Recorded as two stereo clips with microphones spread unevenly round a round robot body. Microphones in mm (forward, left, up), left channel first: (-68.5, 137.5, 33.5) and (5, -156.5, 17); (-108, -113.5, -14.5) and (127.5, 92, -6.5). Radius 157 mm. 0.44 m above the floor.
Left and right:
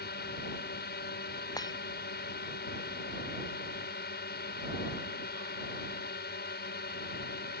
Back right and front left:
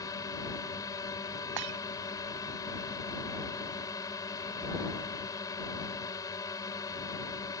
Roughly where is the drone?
Behind left.